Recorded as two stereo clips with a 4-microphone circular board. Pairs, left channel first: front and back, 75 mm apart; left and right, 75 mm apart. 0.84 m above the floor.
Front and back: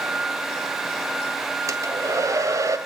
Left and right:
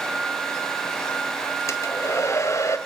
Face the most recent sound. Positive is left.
turn(degrees=135)